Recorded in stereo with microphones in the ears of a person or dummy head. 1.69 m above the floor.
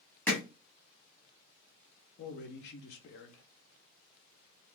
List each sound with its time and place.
0.3 s hammering: 15° left (ahead or behind), 0.8 m
2.2 s a man speaking: 65° left (ahead or behind), 0.5 m